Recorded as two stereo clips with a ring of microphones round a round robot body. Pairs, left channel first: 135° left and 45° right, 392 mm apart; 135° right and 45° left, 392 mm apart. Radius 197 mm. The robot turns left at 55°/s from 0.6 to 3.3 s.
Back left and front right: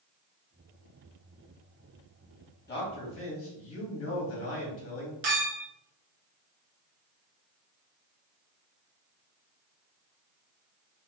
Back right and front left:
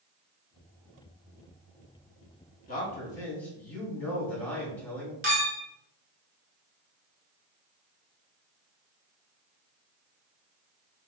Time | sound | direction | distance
2.7 | a man speaking | 175° left | 1.3 m
5.2 | a clink | 20° right | 1.5 m